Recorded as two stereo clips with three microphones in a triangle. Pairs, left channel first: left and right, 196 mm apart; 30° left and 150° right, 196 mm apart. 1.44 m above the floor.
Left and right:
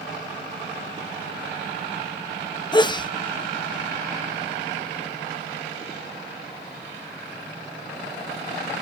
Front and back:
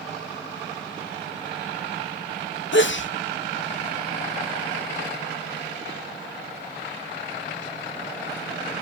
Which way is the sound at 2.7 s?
25° left.